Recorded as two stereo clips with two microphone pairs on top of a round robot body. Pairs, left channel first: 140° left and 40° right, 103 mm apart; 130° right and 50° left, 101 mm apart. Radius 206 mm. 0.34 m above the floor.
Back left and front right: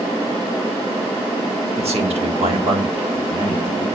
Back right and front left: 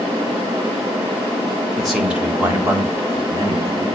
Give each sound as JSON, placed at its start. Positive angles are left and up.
{"t": 1.8, "sound": "a man speaking", "azimuth_deg": -40, "distance_m": 2.0}